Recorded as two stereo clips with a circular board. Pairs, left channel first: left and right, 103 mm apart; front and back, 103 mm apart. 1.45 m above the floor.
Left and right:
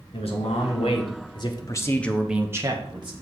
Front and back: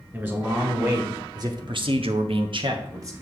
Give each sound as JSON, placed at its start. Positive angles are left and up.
{"t": 0.1, "sound": "a man speaking", "azimuth_deg": 110, "distance_m": 2.5}